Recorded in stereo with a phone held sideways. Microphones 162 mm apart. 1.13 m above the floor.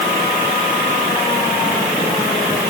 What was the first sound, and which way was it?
Only background noise.